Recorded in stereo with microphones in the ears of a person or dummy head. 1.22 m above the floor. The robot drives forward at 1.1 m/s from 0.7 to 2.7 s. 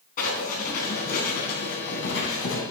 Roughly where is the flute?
No flute in this recording.